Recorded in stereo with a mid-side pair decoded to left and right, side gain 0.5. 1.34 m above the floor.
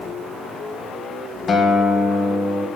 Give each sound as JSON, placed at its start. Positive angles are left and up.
{"t": 1.5, "sound": "a guitar", "azimuth_deg": 45, "distance_m": 1.3}